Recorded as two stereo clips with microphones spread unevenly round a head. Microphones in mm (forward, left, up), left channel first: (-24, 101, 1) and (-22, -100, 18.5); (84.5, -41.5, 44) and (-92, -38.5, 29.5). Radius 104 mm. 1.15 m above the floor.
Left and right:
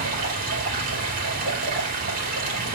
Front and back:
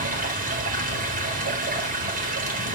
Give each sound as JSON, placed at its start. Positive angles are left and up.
{"t": 0.0, "sound": "running water", "azimuth_deg": -140, "distance_m": 3.0}